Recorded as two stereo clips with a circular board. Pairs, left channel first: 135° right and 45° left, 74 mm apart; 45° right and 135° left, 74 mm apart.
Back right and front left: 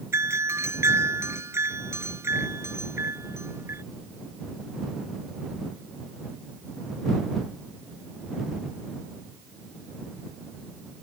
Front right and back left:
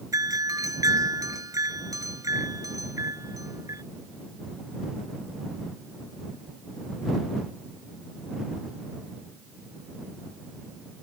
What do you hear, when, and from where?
0.1 s a doorbell: 95° left